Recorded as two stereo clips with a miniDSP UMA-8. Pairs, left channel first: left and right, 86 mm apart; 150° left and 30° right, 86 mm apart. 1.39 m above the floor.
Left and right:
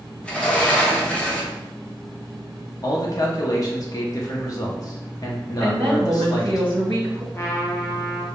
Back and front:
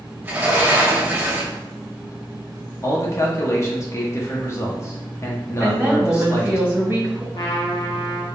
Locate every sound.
0.2 s a sliding door: 20° left, 0.6 m
2.8 s a man speaking: 110° left, 0.5 m
5.6 s a woman speaking: 95° right, 1.2 m
7.3 s a trumpet: 140° left, 0.7 m